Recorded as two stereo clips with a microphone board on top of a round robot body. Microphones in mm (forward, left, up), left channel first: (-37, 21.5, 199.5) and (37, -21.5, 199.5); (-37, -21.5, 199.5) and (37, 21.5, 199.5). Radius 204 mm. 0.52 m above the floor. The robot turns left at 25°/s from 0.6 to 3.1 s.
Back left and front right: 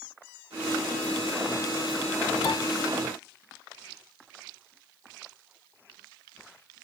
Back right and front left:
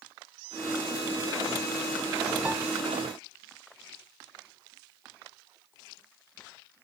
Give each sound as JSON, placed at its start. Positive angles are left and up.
{"t": 2.5, "sound": "a piano", "azimuth_deg": 105, "distance_m": 0.5}